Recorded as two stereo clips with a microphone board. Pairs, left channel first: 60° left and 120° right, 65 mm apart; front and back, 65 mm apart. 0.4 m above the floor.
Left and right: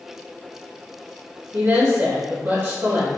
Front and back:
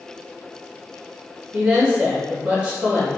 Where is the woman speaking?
115° right, 1.1 m.